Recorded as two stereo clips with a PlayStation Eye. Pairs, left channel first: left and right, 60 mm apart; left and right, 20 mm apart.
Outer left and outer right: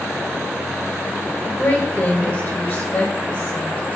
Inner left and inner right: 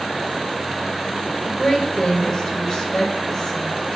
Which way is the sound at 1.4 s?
40° left (ahead or behind).